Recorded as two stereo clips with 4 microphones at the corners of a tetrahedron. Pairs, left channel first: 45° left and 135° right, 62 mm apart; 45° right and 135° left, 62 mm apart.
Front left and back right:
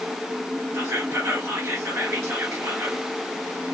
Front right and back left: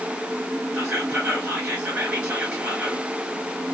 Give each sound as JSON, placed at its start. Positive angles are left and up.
{"t": 0.7, "sound": "whispering", "azimuth_deg": -160, "distance_m": 2.0}